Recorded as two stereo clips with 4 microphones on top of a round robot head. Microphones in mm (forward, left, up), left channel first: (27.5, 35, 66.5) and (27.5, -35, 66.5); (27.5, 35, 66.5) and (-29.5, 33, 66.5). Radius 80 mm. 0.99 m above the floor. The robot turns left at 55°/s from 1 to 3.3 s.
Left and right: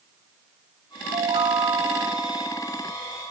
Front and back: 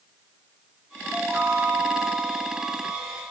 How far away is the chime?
About 3.5 m.